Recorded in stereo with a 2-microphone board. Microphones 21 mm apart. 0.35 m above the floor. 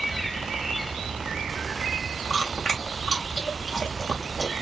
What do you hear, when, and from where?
2.3 s chewing: 25° left (ahead or behind), 1.9 m